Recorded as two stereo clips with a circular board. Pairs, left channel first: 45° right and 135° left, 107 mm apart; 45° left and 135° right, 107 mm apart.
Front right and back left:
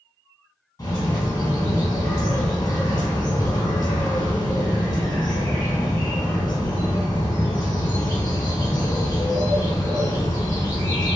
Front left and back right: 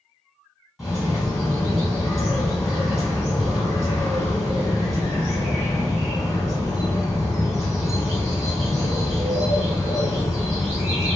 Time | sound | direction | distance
0.8 | a bird | 45° right | 1.3 m